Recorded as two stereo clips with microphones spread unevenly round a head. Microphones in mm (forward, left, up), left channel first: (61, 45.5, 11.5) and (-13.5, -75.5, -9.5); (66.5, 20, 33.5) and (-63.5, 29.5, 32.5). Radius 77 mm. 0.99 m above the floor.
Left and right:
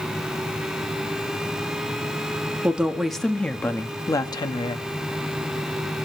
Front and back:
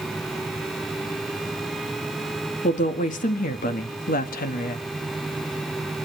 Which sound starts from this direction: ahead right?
A woman speaking, at 2.6 s.